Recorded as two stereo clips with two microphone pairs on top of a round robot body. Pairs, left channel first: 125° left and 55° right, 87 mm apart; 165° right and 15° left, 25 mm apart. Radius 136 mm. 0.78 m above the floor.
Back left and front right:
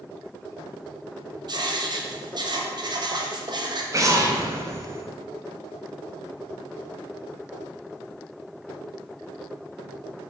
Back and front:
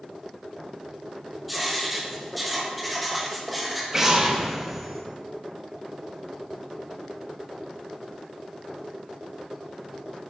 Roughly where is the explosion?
Ahead right.